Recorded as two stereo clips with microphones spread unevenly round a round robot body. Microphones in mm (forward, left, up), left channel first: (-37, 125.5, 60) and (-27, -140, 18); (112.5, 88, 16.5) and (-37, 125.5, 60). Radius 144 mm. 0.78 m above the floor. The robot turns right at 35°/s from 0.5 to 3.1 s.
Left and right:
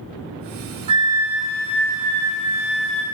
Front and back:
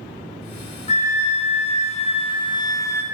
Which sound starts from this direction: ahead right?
A flute, at 0.9 s.